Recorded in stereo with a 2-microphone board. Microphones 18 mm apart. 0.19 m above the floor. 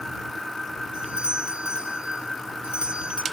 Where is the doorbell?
55° right (ahead or behind).